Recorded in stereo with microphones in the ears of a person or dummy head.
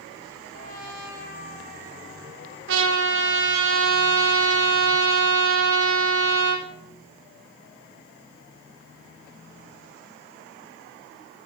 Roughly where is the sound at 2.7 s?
Right.